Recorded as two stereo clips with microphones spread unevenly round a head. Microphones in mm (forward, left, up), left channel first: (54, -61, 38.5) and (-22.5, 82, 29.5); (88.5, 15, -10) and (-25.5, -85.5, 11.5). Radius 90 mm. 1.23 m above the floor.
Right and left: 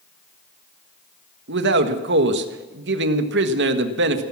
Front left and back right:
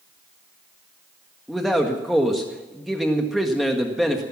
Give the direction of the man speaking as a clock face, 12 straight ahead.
8 o'clock.